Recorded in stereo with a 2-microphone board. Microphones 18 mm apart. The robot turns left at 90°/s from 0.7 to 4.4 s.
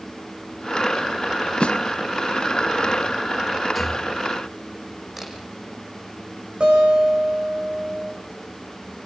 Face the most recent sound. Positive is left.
turn(degrees=-65)  # may be behind; listen again after turning